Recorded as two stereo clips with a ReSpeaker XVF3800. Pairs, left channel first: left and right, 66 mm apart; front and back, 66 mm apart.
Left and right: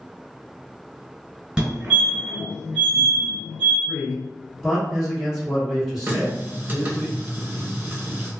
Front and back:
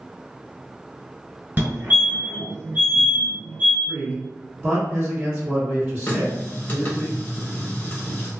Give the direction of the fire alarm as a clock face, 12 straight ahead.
5 o'clock.